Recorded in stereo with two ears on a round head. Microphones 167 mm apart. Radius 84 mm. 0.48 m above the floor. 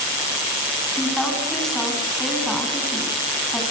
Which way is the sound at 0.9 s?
Centre (ahead or behind).